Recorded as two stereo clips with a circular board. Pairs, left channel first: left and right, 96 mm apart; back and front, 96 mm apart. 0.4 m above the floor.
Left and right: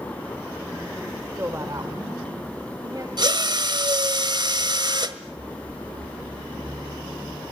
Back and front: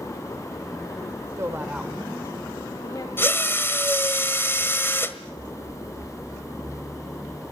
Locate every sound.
1.4 s a woman speaking: 35° right, 1.4 m; by 3.1 s 140° right, 2.5 m
3.2 s a drill: 120° right, 1.5 m